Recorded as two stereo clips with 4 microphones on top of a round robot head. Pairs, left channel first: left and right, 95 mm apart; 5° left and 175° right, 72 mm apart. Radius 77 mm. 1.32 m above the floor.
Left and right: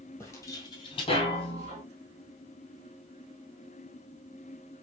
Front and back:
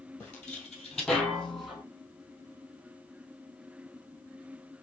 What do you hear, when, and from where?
0.2 s footsteps: 55° left, 1.3 m; by 1.8 s 100° left, 2 m